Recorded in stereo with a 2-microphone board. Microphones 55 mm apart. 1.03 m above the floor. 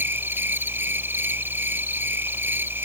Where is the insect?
40° right (ahead or behind).